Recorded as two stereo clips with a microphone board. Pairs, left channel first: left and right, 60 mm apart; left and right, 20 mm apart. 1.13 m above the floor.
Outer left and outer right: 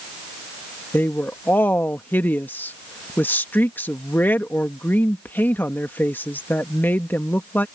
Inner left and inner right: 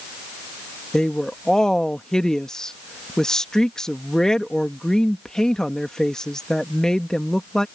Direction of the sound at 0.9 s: 35° left (ahead or behind).